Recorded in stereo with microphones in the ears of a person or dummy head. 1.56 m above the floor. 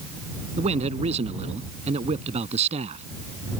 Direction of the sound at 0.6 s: 35° right (ahead or behind).